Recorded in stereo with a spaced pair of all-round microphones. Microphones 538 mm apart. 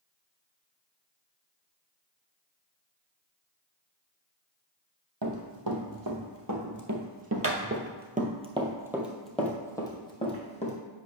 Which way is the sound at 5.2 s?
40° right (ahead or behind).